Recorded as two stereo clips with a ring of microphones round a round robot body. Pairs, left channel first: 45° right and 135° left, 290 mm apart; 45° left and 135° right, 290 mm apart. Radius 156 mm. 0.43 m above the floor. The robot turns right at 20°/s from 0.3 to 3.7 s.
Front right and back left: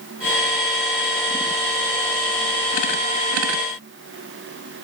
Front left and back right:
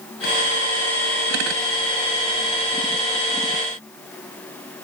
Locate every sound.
Only background noise.